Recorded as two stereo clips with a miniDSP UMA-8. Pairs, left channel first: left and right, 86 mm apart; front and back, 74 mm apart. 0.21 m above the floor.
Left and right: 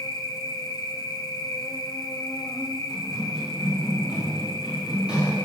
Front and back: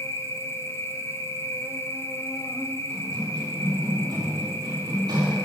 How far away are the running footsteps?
About 4 m.